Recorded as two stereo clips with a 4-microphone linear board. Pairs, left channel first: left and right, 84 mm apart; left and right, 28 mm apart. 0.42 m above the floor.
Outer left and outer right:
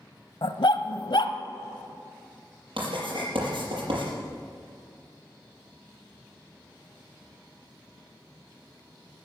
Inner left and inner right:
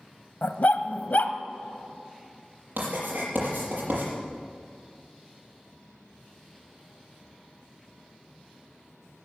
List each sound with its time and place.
0.4 s a dog barking: 75° left (ahead or behind), 0.9 m
2.8 s writing: 85° right, 6 m